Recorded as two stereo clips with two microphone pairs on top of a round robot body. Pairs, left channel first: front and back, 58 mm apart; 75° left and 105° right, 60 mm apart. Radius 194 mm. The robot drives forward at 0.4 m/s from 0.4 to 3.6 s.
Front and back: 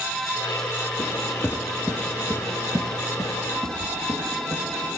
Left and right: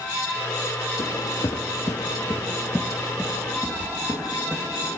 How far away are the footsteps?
About 1.8 m.